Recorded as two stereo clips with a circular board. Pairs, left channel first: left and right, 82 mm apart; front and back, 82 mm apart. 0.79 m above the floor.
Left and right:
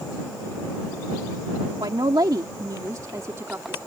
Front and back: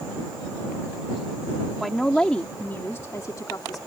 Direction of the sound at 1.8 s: 90° right.